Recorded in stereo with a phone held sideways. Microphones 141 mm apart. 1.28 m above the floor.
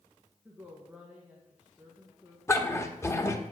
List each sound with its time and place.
0.5 s a woman speaking: 10° right (ahead or behind), 1.5 m
2.5 s a dog barking: 20° left (ahead or behind), 0.9 m